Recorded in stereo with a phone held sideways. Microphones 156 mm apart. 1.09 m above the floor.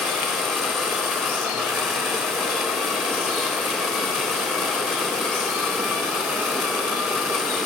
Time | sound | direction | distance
0.0 | a machine running | centre (ahead or behind) | 4 m